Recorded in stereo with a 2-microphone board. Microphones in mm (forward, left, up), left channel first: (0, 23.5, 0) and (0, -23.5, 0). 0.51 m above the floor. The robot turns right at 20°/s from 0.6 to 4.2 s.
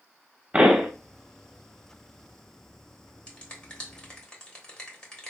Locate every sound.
0.5 s a pop: 20° right (ahead or behind), 1.0 m
3.3 s a finger snap: 25° left (ahead or behind), 1.2 m; by 5.3 s 20° left (ahead or behind), 1.2 m